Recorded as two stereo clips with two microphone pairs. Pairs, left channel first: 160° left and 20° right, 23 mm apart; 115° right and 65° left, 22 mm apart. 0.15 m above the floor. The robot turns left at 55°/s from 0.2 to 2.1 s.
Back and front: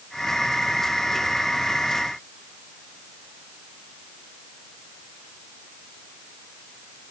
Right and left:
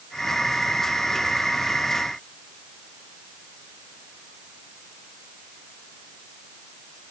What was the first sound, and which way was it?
Only background noise.